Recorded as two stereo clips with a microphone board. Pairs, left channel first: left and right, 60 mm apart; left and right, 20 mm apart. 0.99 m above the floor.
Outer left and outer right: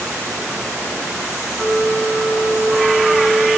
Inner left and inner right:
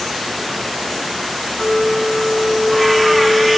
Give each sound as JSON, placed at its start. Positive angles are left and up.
{"t": 1.5, "sound": "a flute", "side_deg": 5, "distance_m": 4.0}